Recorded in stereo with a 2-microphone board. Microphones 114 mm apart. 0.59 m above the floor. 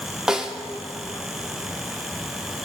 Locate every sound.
0.3 s a snare drum: 5° right (ahead or behind), 1.1 m